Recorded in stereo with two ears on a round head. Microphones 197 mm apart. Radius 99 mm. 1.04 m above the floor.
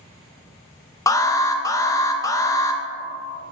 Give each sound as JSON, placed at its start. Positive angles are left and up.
{"t": 1.1, "sound": "an alarm", "side_deg": 15, "distance_m": 0.6}